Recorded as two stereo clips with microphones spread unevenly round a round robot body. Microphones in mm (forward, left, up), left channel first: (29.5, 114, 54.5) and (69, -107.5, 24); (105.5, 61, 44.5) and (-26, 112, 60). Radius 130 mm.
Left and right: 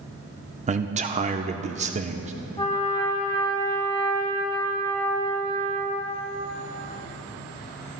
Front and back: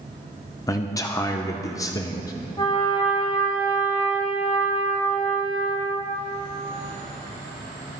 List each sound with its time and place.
0.7 s a man speaking: 65° right, 0.8 m
2.6 s a trumpet: 30° left, 4 m